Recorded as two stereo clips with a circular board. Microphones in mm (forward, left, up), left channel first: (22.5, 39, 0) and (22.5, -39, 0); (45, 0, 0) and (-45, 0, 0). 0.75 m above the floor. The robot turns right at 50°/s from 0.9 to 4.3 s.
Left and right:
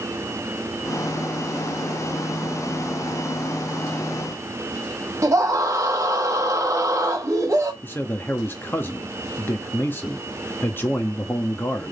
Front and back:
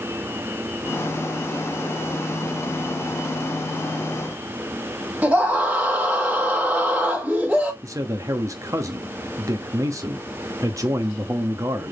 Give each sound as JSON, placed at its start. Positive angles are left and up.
{"t": 5.2, "sound": "a scream", "azimuth_deg": -110, "distance_m": 1.2}
{"t": 7.8, "sound": "a man speaking", "azimuth_deg": 140, "distance_m": 1.1}